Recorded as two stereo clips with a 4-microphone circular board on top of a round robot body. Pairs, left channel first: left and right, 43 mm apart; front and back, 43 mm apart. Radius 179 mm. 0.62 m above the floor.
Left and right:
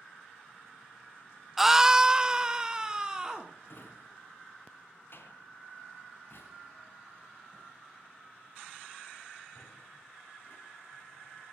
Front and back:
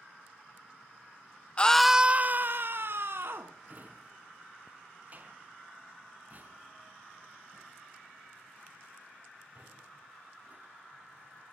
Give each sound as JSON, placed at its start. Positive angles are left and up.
{"t": 1.6, "sound": "a scream", "azimuth_deg": -15, "distance_m": 0.8}
{"t": 3.7, "sound": "a drawer", "azimuth_deg": 125, "distance_m": 4.0}